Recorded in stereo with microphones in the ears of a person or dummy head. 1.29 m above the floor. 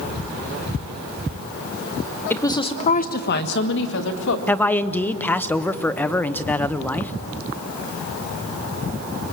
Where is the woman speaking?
5° left (ahead or behind), 1.0 m; by 4.4 s 75° left (ahead or behind), 1.8 m.